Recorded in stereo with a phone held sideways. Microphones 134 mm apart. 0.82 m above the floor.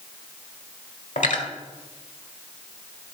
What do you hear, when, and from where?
1.2 s cutlery clinking: 75° left (ahead or behind), 1.4 m